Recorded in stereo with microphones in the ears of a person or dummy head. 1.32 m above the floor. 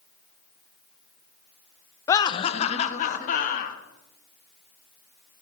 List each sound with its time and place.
2.1 s laughter: 20° left (ahead or behind), 0.6 m; by 3.8 s 50° left (ahead or behind), 1.9 m